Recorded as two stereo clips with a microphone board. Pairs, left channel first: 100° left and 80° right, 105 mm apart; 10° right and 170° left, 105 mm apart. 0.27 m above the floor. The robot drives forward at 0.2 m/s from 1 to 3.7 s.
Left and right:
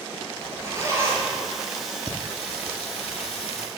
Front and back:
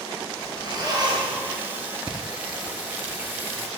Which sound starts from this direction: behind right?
A zipper, at 0.4 s.